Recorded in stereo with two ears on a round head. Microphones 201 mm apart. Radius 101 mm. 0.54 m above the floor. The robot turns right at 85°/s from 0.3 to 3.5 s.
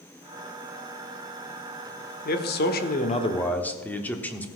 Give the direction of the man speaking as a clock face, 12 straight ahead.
10 o'clock.